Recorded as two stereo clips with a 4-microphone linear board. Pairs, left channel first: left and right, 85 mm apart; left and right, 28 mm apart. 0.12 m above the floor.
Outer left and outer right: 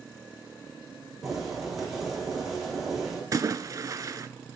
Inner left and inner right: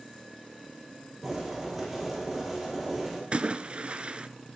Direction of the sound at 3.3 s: 40° right (ahead or behind).